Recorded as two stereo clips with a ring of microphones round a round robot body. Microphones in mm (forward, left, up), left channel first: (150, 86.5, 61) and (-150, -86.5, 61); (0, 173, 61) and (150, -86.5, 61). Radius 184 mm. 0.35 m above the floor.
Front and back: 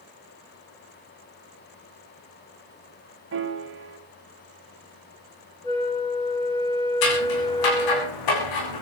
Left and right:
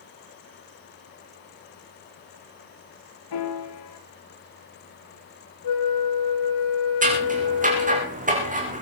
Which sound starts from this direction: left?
A flute, at 5.6 s.